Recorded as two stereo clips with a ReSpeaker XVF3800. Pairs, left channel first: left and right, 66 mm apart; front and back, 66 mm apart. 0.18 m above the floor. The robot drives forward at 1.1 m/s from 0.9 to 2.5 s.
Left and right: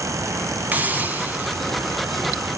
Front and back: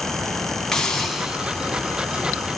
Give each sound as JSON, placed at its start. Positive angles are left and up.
{"t": 0.7, "sound": "a hiss", "azimuth_deg": -70, "distance_m": 1.5}